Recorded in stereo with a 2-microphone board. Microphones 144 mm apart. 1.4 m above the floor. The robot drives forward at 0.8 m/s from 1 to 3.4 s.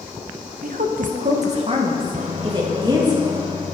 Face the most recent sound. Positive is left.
turn(degrees=-30)  # may be behind; listen again after turning